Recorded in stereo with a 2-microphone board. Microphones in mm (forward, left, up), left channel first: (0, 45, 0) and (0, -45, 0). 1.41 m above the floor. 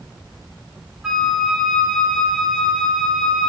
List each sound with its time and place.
1.0 s a flute: 5° right (ahead or behind), 2.5 m